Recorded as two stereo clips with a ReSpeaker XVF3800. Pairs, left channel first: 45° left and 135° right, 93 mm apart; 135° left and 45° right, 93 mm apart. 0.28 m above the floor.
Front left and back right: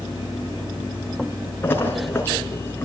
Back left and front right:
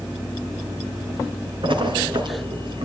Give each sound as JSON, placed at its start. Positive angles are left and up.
{"t": 1.6, "sound": "a splash", "azimuth_deg": -20, "distance_m": 3.0}